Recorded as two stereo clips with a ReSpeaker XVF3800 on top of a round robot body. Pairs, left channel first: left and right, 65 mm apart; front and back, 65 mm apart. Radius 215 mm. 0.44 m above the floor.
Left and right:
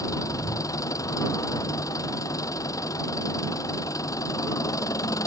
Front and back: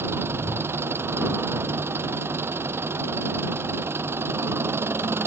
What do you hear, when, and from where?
0.0 s an engine running: 125° left